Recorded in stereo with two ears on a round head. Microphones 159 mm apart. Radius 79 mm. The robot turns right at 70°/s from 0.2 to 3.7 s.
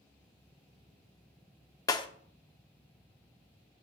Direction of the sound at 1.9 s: 20° left (ahead or behind).